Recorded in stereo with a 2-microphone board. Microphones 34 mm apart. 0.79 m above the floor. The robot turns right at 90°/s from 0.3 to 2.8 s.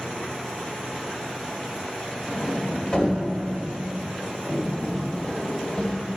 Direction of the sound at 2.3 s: 35° right (ahead or behind).